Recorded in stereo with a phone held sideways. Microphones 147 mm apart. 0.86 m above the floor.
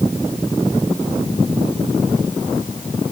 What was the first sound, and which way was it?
Only background noise.